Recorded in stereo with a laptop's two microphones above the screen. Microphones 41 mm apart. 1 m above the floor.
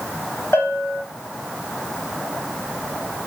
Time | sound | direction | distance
0.5 | a bell | 80° left | 1.5 m